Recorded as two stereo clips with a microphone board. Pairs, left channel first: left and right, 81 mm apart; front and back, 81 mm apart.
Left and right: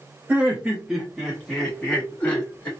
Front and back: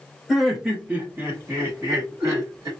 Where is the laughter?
95° right, 1.3 m; by 2.7 s 155° left, 1.9 m.